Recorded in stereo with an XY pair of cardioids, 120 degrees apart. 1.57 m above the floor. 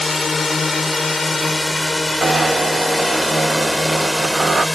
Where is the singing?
I don't hear singing.